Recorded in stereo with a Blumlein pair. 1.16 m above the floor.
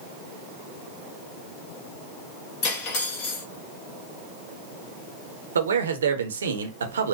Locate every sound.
2.6 s cutlery clinking: 35° left, 1.6 m
5.5 s a man speaking: 65° right, 0.8 m